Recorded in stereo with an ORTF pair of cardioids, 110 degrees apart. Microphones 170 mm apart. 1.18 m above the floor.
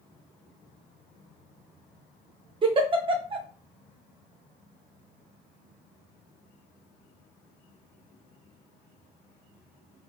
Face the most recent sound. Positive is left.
turn(degrees=-30)